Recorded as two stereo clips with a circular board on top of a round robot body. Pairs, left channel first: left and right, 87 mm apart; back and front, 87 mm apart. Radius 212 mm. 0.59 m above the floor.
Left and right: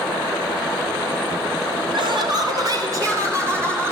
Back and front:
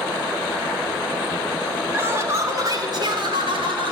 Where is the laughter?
70° right, 2.5 m; by 3.9 s 25° right, 3.5 m.